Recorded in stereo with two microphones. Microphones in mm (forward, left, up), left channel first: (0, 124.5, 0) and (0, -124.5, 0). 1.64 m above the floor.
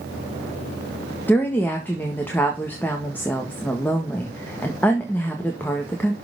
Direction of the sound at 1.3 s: 10° left (ahead or behind).